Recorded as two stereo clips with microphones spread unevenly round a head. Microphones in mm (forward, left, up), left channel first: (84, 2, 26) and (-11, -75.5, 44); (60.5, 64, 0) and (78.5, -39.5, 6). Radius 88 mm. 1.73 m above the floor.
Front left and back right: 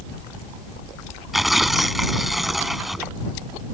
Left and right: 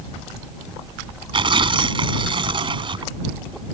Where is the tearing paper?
55° right.